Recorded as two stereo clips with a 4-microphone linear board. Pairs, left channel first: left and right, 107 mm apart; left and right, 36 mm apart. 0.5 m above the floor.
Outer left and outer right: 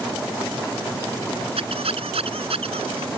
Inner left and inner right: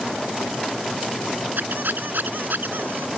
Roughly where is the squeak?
Right.